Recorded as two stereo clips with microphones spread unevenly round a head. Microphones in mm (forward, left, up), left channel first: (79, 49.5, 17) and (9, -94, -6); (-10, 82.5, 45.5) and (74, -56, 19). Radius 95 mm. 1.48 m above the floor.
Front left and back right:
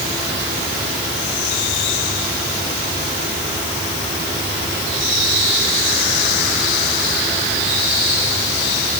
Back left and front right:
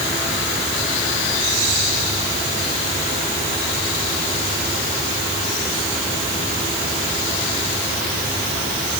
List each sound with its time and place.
Only background noise.